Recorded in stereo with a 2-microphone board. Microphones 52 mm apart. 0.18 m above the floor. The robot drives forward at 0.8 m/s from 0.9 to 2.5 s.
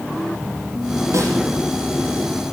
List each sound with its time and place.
1.1 s a snare drum: 70° right (ahead or behind), 7.5 m; by 1.4 s 65° right (ahead or behind), 7.5 m